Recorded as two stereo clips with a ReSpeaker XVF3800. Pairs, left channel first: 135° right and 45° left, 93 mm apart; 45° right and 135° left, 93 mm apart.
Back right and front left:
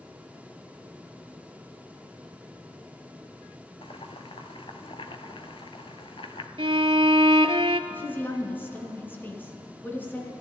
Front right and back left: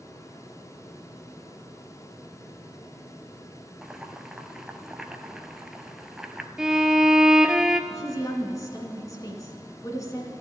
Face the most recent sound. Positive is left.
turn(degrees=-75)